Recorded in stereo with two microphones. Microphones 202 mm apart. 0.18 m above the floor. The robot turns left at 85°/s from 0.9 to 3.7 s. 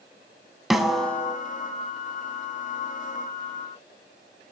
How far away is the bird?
I don't hear a bird.